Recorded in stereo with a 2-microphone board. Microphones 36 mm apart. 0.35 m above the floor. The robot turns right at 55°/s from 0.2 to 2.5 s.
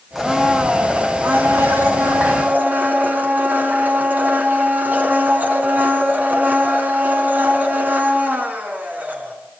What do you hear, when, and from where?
0.1 s a blender: 175° right, 4.5 m; by 9.3 s 50° right, 4.5 m